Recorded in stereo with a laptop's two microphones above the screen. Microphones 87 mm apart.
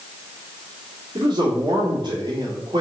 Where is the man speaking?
60° right (ahead or behind), 2 m.